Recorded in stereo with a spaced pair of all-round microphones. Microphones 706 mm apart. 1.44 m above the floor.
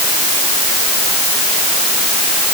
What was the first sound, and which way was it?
Only background noise.